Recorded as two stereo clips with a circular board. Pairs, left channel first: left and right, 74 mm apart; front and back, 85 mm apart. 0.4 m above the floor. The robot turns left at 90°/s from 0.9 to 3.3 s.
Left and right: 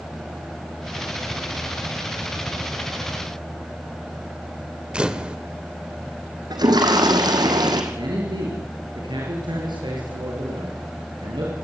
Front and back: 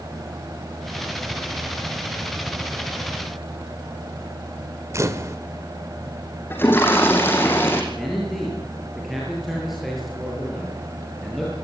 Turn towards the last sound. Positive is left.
turn(degrees=-90)